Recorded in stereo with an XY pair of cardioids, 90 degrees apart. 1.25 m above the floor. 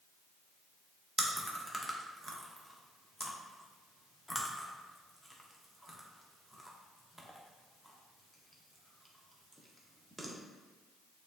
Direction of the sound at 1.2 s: Straight ahead.